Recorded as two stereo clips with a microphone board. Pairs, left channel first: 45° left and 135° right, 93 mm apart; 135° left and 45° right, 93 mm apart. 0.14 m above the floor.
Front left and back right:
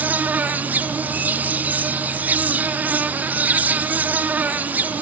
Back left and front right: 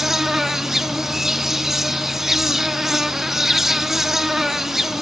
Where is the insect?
120° right, 0.9 m.